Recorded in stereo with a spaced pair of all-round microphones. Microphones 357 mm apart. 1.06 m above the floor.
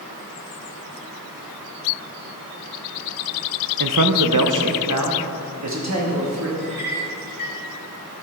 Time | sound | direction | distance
3.8 | a man speaking | 65° right (ahead or behind) | 0.6 m
6.6 | a clink | 55° left (ahead or behind) | 2.5 m